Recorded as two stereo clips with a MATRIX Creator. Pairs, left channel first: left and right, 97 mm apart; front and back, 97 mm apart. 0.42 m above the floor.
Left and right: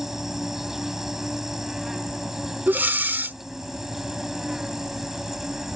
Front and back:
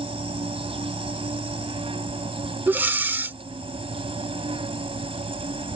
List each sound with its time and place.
0.0 s an insect: 175° right
2.7 s breathing: 135° right